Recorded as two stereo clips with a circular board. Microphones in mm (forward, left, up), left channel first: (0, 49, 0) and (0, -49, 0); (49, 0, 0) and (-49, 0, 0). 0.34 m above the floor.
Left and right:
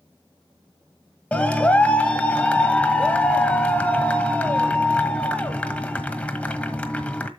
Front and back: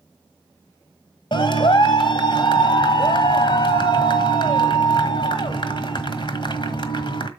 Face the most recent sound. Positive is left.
turn(degrees=15)